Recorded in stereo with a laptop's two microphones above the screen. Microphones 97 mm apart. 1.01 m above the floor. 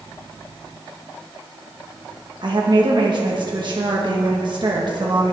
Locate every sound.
2.4 s a woman speaking: 50° right (ahead or behind), 1.3 m